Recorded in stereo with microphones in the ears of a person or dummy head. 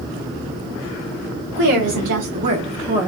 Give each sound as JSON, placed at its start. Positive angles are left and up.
{"t": 1.6, "sound": "a woman speaking", "side_deg": -60, "distance_m": 1.1}